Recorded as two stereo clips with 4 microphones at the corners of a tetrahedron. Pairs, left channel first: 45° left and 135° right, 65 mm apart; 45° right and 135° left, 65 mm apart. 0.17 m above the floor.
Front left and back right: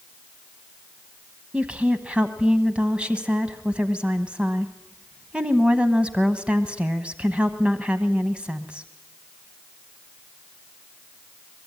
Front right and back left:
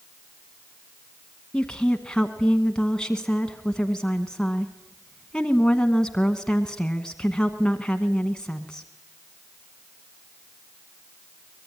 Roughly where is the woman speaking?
Right.